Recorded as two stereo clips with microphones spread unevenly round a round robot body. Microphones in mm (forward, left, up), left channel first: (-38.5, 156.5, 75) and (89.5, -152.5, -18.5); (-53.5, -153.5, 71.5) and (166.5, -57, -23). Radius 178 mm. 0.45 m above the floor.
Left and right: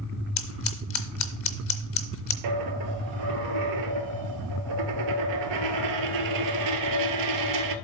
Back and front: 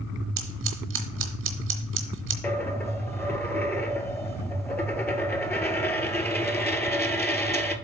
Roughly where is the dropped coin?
Right.